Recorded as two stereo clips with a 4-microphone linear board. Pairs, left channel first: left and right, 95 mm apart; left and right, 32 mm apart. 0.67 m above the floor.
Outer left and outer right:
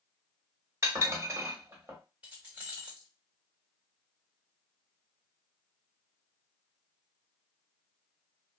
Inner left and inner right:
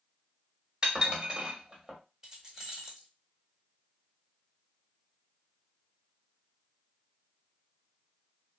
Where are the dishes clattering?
30° right (ahead or behind), 1.1 m.